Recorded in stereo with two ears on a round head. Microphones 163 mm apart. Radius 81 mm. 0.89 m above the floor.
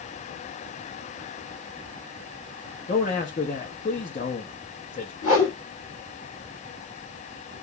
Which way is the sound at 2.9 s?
35° left (ahead or behind).